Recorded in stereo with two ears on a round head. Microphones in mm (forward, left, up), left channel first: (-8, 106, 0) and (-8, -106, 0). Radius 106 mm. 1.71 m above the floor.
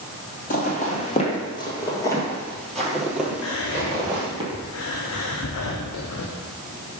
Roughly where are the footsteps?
Left.